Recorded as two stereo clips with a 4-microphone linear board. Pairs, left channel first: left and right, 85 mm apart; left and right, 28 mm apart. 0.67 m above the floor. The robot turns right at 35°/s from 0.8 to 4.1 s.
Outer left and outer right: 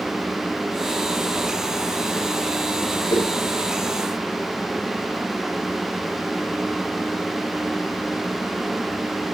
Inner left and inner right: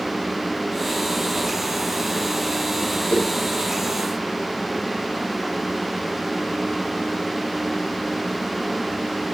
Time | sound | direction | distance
3.1 | a whoosh | 65° left (ahead or behind) | 3 m